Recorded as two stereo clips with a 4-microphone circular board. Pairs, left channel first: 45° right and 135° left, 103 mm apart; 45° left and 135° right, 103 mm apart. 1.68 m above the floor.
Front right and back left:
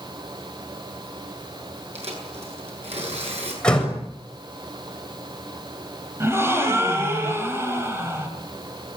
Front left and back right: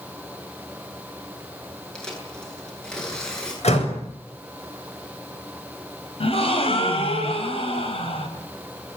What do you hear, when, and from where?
1.9 s tearing paper: 125° left, 10 m
3.6 s a door slam: 35° left, 7 m
6.2 s a gasp: 70° left, 5 m